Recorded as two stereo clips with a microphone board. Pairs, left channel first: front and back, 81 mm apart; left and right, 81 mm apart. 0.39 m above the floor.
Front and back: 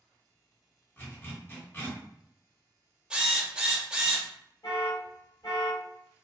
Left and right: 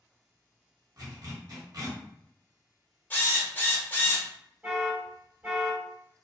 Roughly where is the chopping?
No chopping in this recording.